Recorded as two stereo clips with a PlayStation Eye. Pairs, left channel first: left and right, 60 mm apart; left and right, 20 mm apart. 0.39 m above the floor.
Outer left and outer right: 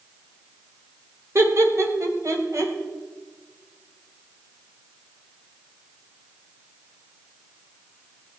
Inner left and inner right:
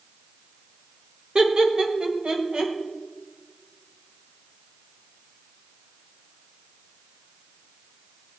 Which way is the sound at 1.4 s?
50° right (ahead or behind).